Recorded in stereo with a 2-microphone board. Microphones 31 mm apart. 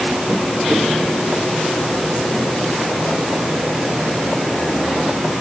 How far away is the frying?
No frying in this recording.